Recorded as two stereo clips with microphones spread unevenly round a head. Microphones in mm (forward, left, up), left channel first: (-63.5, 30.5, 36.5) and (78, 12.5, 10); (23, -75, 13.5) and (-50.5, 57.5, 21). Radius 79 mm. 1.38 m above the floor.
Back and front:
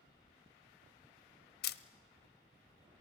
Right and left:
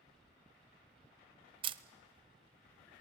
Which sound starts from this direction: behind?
A camera shutter, at 1.6 s.